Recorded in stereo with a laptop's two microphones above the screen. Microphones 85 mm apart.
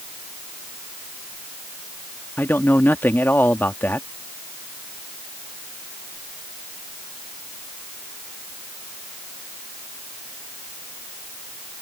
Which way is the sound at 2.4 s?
25° left (ahead or behind).